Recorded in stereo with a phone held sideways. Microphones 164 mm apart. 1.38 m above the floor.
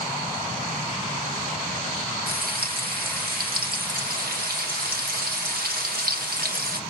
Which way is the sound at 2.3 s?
85° right.